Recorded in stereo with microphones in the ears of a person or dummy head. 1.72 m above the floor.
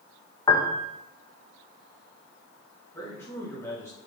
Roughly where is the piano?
Centre.